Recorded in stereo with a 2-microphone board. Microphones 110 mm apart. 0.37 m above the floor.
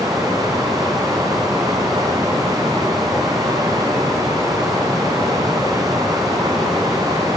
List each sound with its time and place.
0.0 s running water: 35° right (ahead or behind), 1.1 m